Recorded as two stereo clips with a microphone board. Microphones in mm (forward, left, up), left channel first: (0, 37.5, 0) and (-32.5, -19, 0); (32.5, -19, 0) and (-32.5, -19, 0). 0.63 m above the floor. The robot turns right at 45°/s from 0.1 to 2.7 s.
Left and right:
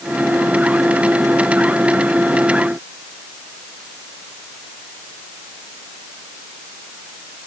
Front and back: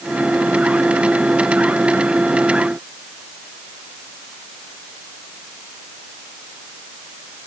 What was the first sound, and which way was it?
Only background noise.